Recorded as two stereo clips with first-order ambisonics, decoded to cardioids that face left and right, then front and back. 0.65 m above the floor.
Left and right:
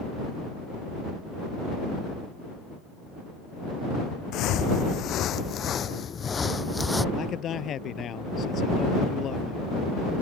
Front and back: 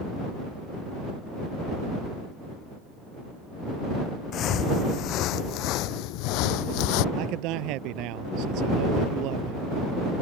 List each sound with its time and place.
4.3 s footsteps: 50° left; by 7.0 s 5° left
7.2 s a man speaking: 150° left